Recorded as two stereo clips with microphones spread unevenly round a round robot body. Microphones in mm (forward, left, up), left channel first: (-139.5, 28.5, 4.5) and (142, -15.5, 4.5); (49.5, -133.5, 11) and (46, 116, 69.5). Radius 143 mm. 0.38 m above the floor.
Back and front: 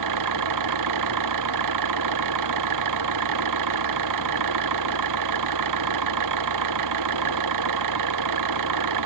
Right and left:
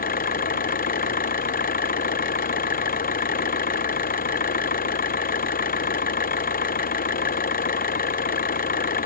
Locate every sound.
0.0 s an engine running: 35° right